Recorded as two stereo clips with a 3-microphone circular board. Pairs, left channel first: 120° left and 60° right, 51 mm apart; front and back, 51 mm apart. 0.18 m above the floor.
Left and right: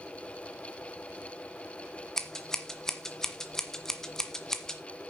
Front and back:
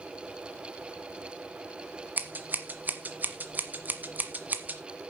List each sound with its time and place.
2.2 s scissors: 165° right, 1.4 m